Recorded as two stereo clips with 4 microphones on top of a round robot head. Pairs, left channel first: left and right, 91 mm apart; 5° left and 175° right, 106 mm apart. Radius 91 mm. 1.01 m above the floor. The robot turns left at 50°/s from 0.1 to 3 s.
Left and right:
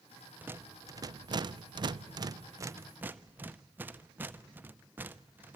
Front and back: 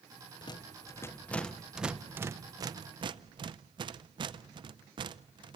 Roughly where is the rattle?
Ahead right.